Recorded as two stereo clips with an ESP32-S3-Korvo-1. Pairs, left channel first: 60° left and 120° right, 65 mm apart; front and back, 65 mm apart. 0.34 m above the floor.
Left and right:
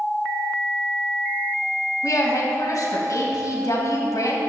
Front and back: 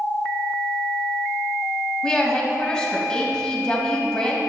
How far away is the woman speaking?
About 1.9 m.